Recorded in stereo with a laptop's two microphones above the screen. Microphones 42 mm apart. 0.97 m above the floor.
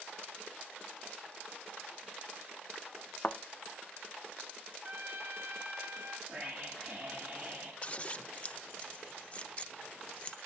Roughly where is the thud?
Left.